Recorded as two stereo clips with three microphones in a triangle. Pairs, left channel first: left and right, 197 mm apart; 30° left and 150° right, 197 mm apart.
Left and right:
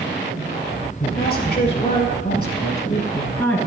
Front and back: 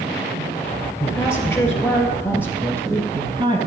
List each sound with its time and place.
1.0 s a woman speaking: 105° left, 2.0 m; by 3.6 s 170° left, 1.7 m